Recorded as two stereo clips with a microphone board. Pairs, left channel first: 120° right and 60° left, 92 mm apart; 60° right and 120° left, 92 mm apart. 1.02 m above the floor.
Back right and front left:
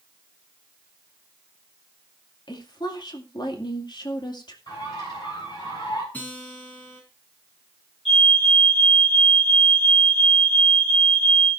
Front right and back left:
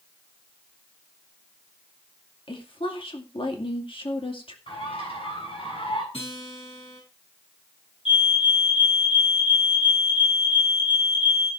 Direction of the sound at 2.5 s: 80° right.